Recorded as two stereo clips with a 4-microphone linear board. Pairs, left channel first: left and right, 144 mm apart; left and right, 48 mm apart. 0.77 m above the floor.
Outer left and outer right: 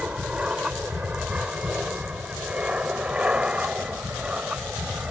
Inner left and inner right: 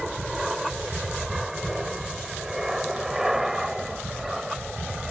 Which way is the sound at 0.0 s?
5° right (ahead or behind).